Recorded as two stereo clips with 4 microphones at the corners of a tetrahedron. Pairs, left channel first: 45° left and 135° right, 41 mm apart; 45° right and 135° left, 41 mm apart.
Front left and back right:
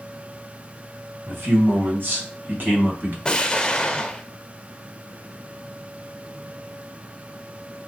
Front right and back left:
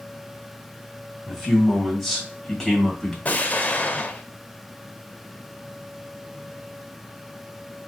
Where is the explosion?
15° right, 0.5 m.